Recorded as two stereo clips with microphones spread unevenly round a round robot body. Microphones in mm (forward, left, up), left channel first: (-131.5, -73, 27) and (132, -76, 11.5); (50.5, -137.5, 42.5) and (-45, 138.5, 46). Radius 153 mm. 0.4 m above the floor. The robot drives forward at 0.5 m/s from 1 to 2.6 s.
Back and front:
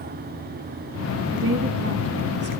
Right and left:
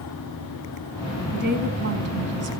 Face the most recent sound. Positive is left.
turn(degrees=60)